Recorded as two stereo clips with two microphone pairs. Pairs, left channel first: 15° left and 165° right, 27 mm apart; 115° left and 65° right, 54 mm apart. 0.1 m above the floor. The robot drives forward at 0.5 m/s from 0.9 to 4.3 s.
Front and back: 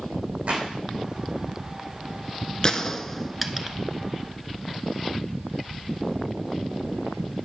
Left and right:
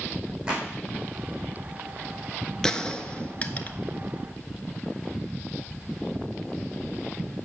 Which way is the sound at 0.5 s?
135° right.